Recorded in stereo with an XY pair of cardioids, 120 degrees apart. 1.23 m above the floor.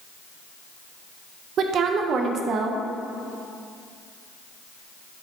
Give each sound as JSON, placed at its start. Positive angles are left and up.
{"t": 1.6, "sound": "a woman speaking", "azimuth_deg": -55, "distance_m": 0.8}